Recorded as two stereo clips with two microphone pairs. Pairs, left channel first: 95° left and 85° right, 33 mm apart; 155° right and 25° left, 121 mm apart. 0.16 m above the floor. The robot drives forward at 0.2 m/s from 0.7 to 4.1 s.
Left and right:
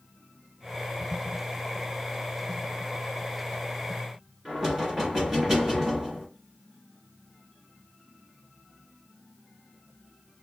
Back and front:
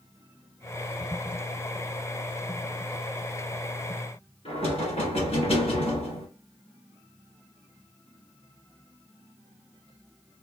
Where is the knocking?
165° right, 2.0 m.